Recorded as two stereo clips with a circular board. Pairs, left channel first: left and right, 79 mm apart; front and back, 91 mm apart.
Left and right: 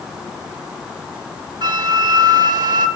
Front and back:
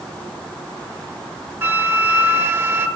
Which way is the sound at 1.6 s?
115° right.